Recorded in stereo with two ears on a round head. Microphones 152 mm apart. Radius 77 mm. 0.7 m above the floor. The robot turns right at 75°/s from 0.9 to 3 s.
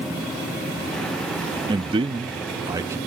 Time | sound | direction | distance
1.7 | a man speaking | 125° right | ?